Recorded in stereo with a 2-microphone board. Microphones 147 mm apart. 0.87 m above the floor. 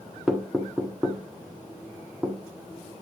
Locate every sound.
0.3 s knocking: 5° right (ahead or behind), 1.4 m